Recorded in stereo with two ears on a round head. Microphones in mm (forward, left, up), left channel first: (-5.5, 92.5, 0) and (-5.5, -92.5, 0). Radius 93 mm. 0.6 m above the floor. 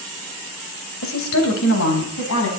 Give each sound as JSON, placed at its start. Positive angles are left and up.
{"t": 1.0, "sound": "a woman speaking", "side_deg": 70, "distance_m": 2.5}